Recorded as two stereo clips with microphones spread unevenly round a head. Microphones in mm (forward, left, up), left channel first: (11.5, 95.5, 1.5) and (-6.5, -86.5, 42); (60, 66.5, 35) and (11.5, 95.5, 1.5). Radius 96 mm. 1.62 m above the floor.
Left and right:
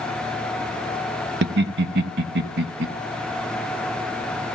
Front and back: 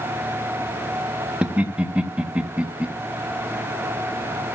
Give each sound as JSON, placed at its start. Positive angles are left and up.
{"t": 1.4, "sound": "laughter", "azimuth_deg": -130, "distance_m": 1.2}